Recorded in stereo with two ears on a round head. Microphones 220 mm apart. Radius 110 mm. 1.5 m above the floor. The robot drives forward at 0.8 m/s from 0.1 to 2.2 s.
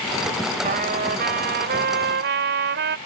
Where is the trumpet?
35° right (ahead or behind); by 3.0 s 45° right (ahead or behind).